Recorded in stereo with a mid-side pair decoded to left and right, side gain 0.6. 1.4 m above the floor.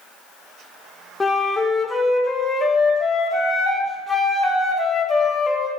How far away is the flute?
About 1.1 m.